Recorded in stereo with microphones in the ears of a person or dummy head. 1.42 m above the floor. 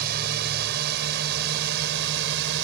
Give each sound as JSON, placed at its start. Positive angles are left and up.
{"t": 0.0, "sound": "a drone", "side_deg": -55}